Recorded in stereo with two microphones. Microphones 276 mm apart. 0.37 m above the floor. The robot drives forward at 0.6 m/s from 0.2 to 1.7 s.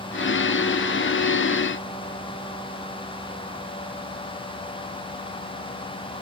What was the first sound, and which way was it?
Only background noise.